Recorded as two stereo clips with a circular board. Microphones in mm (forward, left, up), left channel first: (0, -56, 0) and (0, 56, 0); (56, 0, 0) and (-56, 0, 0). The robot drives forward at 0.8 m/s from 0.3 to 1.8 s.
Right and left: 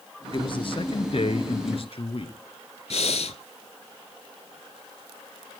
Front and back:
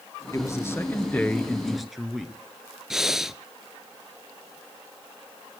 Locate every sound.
0.3 s a man speaking: 55° right, 2.5 m; by 2.3 s 90° right, 2 m
2.9 s breathing: 95° right, 0.6 m